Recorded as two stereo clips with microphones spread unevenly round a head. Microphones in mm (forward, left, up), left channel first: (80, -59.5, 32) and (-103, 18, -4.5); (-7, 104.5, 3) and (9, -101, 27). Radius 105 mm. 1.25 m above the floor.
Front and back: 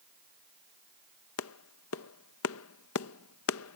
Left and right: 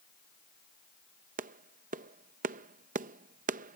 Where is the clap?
35° right.